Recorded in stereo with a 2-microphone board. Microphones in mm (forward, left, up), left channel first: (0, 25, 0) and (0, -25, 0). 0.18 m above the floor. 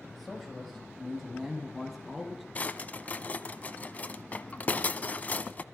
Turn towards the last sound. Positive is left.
turn(degrees=30)  # may be behind; listen again after turning